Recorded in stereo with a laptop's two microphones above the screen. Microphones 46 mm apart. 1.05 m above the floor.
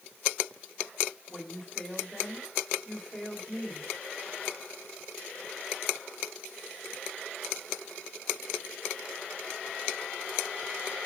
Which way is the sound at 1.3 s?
5° right (ahead or behind).